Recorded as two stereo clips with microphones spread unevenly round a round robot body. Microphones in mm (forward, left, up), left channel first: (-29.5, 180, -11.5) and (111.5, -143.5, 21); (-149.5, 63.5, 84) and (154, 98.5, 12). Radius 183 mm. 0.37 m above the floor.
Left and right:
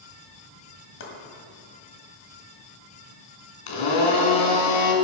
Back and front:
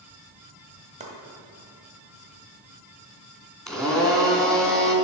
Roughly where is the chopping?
Ahead left.